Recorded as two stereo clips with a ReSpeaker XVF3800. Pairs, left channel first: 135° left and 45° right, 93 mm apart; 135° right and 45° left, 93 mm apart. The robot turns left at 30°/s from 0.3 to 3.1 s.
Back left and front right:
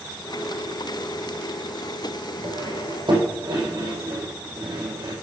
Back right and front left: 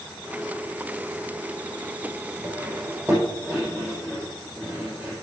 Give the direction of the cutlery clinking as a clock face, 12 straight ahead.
12 o'clock.